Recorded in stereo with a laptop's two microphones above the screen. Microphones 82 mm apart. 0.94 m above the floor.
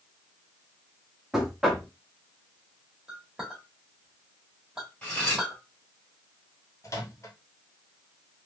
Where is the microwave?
40° left (ahead or behind), 0.9 m.